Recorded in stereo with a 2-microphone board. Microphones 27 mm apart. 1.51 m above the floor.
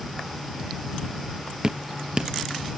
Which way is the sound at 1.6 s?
35° right (ahead or behind).